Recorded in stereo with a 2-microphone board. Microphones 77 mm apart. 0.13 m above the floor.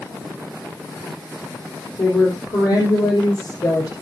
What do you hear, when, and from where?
2.0 s a woman speaking: 60° left (ahead or behind), 4.5 m